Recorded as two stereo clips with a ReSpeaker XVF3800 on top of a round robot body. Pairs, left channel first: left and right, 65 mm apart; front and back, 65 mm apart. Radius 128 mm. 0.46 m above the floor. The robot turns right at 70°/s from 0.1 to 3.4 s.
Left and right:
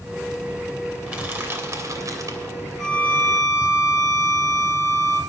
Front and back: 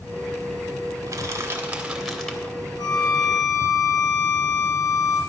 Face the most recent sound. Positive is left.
turn(degrees=50)